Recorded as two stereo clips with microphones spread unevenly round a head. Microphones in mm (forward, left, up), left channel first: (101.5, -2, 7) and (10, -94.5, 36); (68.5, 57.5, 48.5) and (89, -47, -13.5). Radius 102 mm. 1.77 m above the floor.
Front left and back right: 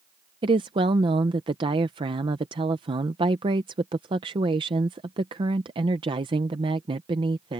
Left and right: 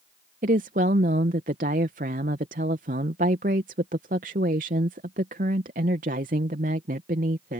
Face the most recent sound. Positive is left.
turn(degrees=-125)